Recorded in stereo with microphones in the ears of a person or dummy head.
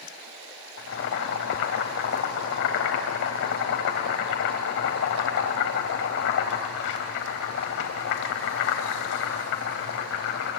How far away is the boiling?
About 3.5 m.